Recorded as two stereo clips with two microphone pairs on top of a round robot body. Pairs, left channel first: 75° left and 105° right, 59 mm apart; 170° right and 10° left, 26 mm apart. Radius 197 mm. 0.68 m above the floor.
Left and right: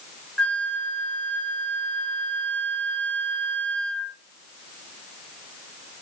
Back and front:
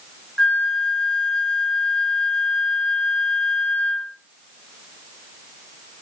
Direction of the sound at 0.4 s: 145° left.